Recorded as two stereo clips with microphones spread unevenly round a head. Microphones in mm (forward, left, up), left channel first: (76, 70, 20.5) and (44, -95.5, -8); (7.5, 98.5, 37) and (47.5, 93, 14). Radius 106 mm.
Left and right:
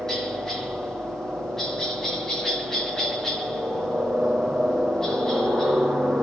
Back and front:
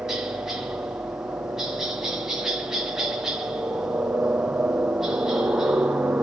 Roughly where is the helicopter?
Ahead.